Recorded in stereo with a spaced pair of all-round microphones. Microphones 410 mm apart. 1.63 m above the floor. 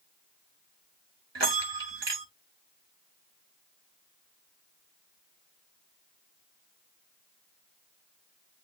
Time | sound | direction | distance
1.4 | a bell | 85° right | 1.2 m